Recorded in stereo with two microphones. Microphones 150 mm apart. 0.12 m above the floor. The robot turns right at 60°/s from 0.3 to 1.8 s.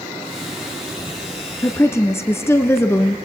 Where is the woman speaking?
20° left (ahead or behind), 1.3 m; by 3.1 s 15° left (ahead or behind), 1.3 m.